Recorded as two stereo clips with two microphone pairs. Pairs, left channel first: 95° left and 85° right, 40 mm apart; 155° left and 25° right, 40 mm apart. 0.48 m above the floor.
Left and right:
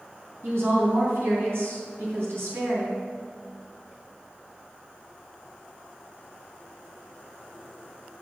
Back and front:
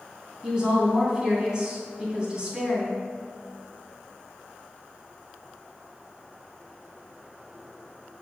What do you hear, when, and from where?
0.4 s a woman speaking: 95° right, 3.5 m